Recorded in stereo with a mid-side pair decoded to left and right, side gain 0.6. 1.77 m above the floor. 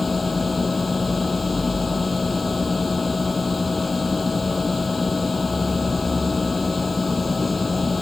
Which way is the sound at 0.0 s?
15° left.